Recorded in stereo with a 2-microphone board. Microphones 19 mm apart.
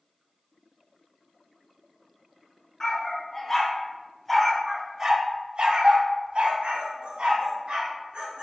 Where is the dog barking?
30° left (ahead or behind), 1.6 m; by 8.4 s 65° right (ahead or behind), 2 m.